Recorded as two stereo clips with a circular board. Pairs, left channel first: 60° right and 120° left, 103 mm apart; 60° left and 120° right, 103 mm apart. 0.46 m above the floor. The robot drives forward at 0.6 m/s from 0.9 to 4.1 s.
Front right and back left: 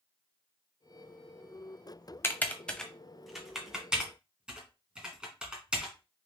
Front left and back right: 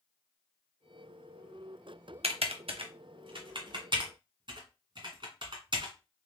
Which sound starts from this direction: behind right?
Typing on a keyboard, at 2.2 s.